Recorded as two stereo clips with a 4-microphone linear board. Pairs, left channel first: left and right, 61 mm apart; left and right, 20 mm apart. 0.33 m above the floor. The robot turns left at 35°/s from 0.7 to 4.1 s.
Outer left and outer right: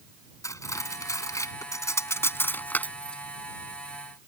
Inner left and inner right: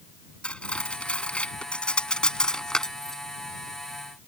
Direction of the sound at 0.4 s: 65° left (ahead or behind).